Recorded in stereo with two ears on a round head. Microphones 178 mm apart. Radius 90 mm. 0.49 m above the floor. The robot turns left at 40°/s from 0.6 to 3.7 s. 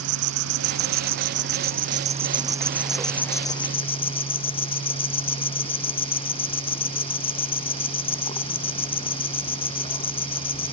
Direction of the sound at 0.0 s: 85° right.